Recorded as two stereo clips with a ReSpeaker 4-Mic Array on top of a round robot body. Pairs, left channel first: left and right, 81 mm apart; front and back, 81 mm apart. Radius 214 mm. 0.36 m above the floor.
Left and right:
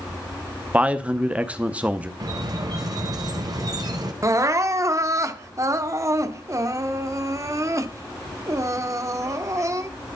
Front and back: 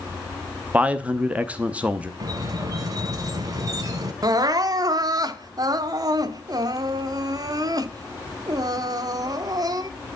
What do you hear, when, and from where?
0.7 s a man speaking: 135° right, 1.2 m
2.2 s a squeak: 130° right, 0.7 m
4.2 s crying: 140° right, 0.8 m